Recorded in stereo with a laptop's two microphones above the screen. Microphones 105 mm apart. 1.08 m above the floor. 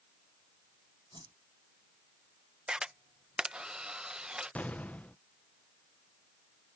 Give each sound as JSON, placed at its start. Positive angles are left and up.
{"t": 1.1, "sound": "a whoosh", "side_deg": -50}
{"t": 2.7, "sound": "a camera shutter", "side_deg": -10}
{"t": 4.5, "sound": "an explosion", "side_deg": 15}